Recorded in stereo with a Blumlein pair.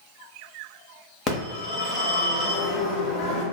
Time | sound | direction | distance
1.3 | a phone ringing | 20° left | 1.0 m